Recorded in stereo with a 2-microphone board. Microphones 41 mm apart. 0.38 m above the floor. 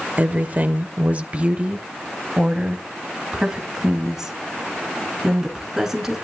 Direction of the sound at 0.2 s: 40° right (ahead or behind).